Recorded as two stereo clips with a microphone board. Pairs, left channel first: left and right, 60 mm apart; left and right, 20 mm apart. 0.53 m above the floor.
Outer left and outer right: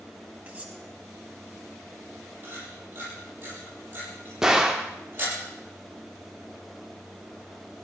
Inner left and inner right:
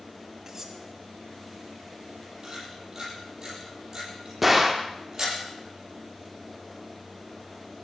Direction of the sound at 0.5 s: 20° right (ahead or behind).